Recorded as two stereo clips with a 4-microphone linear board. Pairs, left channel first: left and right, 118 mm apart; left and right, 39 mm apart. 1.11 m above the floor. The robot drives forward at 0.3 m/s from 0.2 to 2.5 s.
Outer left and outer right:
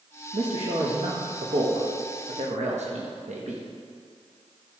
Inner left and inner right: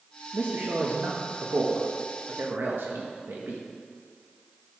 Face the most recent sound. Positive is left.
turn(degrees=-75)  # may be behind; listen again after turning